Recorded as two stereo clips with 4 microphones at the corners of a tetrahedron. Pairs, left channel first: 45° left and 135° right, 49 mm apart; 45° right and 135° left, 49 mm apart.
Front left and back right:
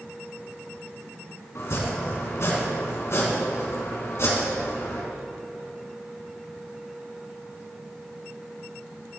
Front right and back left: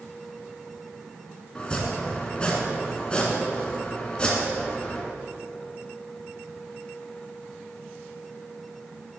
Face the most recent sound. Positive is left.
turn(degrees=25)